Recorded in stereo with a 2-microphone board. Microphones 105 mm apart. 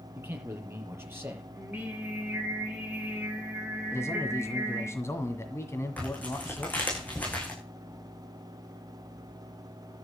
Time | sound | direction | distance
0.1 | a man speaking | 20° right (ahead or behind) | 5.5 m
1.5 | singing | 15° right (ahead or behind) | 9 m
3.9 | a man speaking | 25° left (ahead or behind) | 1.7 m
6.0 | tearing paper | 15° left (ahead or behind) | 7.5 m